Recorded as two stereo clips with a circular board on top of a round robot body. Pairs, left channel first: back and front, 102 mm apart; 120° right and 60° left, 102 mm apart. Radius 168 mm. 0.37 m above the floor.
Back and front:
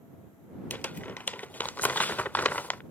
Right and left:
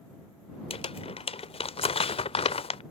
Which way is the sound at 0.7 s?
105° right.